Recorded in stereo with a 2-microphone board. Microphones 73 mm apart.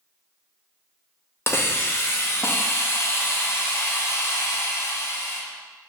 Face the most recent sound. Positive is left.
turn(degrees=35)  # may be behind; listen again after turning